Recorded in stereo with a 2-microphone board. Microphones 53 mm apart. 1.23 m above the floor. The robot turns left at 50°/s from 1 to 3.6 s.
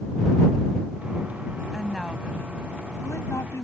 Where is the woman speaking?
175° right; by 3.6 s 90° left.